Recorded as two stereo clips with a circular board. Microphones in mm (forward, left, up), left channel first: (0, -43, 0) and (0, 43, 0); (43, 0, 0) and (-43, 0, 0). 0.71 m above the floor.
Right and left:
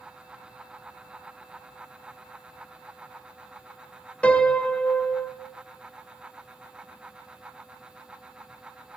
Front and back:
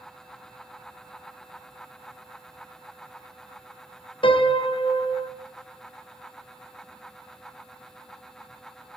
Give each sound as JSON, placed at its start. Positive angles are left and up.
{"t": 4.2, "sound": "a piano", "azimuth_deg": -15, "distance_m": 0.7}